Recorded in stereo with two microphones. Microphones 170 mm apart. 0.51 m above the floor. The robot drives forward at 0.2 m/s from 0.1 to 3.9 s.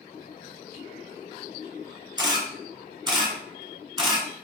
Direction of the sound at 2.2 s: 25° right (ahead or behind).